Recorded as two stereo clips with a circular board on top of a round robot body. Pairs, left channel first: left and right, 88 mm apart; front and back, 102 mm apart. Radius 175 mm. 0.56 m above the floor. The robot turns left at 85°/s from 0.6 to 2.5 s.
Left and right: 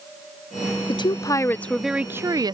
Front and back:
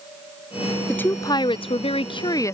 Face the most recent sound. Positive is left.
turn(degrees=-60)